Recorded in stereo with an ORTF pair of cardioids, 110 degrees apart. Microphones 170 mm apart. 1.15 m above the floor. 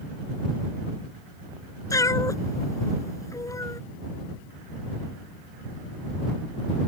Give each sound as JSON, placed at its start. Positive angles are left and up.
{"t": 1.9, "sound": "a cat meowing", "azimuth_deg": 20}